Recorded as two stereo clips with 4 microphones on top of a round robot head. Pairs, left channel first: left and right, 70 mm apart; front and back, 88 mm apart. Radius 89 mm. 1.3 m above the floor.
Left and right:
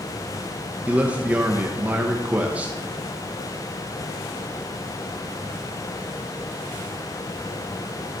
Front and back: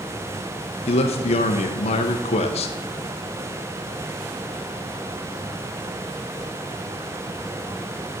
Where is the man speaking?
15° right, 0.7 m.